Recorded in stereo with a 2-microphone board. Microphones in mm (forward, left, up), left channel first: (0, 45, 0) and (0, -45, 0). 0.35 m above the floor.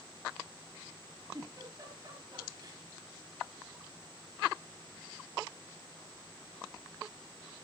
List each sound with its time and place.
1.3 s a giggle: 40° right (ahead or behind), 8 m